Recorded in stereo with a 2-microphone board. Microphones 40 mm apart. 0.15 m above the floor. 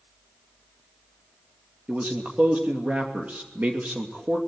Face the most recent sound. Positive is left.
turn(degrees=-40)  # may be behind; listen again after turning